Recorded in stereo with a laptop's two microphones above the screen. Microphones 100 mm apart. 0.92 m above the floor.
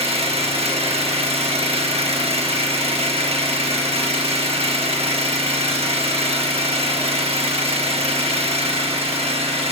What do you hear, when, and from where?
0.0 s an engine running: 80° right, 1.1 m